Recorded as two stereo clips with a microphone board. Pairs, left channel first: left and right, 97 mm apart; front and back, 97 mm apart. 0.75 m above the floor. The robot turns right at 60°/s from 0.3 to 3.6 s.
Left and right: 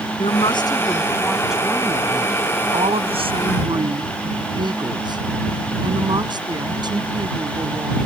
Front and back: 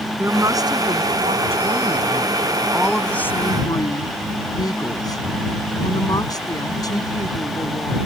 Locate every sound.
0.2 s a woman speaking: 115° left; by 8.0 s 50° right